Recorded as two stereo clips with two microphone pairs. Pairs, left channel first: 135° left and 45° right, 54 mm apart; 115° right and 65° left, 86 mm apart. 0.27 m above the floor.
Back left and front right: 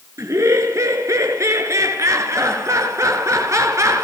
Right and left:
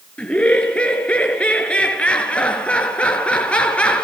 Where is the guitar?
I don't hear a guitar.